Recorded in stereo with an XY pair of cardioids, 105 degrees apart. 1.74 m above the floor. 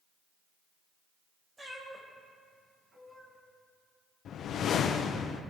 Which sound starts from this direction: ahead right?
A cat meowing, at 1.6 s.